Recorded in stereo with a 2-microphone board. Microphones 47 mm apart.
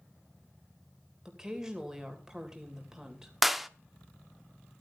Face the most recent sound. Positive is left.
turn(degrees=-5)  # may be behind; listen again after turning